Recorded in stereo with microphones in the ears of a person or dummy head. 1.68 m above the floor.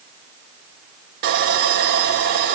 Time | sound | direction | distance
1.2 | sawing | 40° right (ahead or behind) | 1.7 m